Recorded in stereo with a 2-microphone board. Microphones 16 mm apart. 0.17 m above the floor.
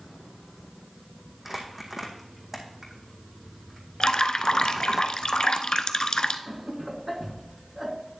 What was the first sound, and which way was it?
Crumpling, 15° right (ahead or behind).